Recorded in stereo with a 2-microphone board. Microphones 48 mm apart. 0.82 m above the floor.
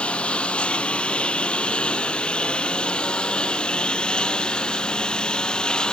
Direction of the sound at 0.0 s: 25° left (ahead or behind).